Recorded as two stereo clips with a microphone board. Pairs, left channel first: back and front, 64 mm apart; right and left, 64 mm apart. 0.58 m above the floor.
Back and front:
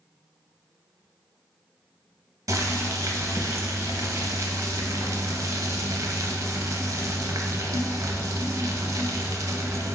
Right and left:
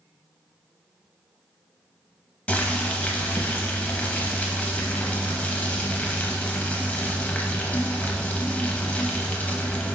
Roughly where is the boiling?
Ahead right.